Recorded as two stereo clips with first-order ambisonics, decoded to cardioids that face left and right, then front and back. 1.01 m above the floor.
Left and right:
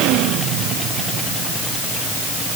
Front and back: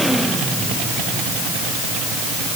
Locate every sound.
Only background noise.